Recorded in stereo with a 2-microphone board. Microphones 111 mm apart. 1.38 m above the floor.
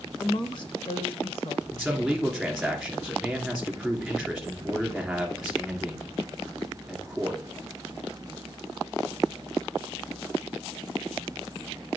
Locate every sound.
0.2 s a woman speaking: 35° left (ahead or behind), 1.0 m; by 1.6 s 55° left (ahead or behind), 1.7 m
1.7 s a man speaking: centre (ahead or behind), 3 m